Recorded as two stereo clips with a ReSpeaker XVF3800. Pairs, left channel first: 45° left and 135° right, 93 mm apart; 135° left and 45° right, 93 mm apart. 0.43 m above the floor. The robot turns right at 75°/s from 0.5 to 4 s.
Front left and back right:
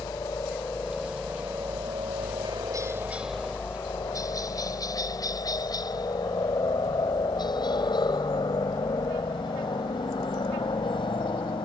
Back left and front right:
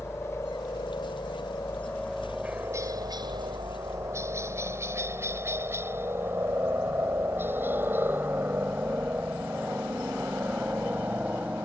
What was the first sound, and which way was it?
A helicopter, 85° left.